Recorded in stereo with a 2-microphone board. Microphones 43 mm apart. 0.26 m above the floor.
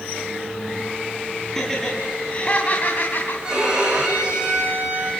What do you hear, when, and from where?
1.6 s laughter: 10° left (ahead or behind), 3 m; by 3.3 s 50° left (ahead or behind), 2.5 m
3.4 s a violin: 20° right (ahead or behind), 9 m